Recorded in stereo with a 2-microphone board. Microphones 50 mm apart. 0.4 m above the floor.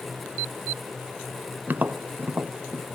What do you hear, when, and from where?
1.7 s tapping: 40° right (ahead or behind), 0.6 m